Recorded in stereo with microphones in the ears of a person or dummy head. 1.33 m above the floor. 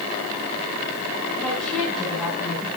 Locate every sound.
1.4 s a woman speaking: 5° left (ahead or behind), 6.5 m; by 2.7 s 5° right (ahead or behind), 6 m